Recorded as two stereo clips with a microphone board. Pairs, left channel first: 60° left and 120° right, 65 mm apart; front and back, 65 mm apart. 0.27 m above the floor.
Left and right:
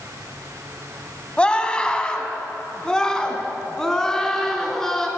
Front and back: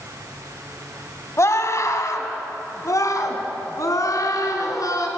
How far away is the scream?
About 2 m.